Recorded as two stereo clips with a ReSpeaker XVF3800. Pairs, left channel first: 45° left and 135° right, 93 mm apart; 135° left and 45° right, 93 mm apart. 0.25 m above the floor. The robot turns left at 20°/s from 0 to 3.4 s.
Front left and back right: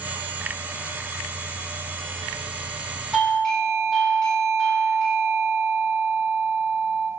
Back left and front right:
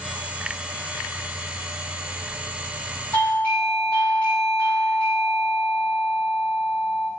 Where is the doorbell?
115° left, 1.4 m; by 7.1 s 105° left, 1.4 m.